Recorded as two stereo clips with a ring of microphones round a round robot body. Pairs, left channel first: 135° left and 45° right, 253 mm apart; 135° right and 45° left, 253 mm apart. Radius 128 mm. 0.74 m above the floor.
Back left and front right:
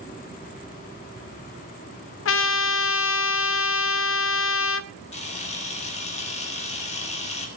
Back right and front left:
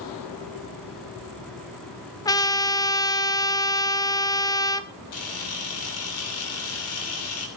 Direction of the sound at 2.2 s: 150° left.